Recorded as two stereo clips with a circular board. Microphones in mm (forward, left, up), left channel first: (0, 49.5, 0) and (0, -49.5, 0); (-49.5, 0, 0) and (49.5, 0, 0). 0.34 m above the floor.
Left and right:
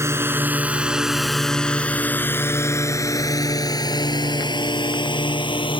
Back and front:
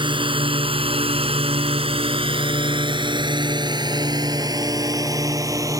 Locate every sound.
0.0 s a drone: 30° right; by 5.8 s 55° left